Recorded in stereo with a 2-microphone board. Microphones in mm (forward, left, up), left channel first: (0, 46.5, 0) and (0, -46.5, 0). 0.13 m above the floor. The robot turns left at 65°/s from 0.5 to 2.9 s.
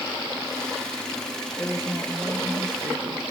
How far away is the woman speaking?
About 2.5 m.